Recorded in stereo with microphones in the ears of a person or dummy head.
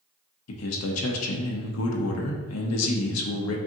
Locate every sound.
0.5 s a man speaking: 75° left (ahead or behind), 0.9 m